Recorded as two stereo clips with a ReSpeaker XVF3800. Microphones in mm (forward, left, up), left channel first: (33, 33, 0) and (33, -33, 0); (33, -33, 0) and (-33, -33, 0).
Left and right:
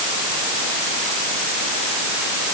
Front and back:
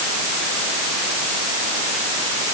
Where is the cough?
I don't hear a cough.